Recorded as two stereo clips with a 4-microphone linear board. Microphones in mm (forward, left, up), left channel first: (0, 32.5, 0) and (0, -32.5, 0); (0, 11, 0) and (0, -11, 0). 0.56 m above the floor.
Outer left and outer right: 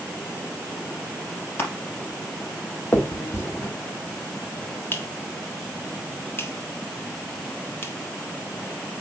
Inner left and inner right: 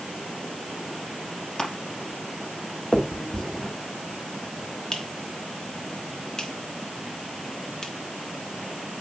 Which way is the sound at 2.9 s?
35° left (ahead or behind).